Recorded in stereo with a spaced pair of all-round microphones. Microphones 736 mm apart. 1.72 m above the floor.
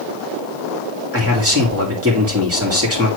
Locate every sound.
1.1 s a man speaking: 20° right (ahead or behind), 3.5 m